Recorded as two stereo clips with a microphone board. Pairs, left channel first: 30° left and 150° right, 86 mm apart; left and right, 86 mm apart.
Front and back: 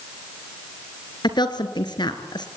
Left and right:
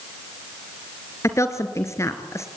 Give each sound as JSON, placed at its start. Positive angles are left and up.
{"t": 1.2, "sound": "a woman speaking", "azimuth_deg": 40, "distance_m": 2.5}